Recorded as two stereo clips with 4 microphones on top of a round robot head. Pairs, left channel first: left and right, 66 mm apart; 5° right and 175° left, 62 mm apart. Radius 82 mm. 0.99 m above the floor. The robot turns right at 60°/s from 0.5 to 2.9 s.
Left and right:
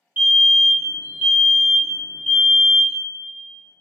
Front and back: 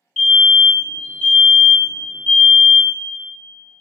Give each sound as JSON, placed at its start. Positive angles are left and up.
{"t": 0.2, "sound": "a fire alarm", "azimuth_deg": -95, "distance_m": 1.1}